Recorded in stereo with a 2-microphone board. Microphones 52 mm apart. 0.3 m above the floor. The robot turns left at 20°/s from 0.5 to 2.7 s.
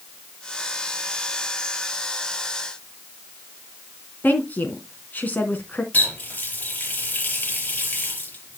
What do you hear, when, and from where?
4.2 s a woman speaking: 30° left (ahead or behind), 2.5 m
5.9 s a running tap: 30° left (ahead or behind), 5 m